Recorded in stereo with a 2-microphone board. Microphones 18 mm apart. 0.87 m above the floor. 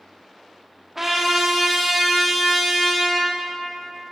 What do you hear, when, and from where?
0.9 s a trumpet: 15° right (ahead or behind), 1.1 m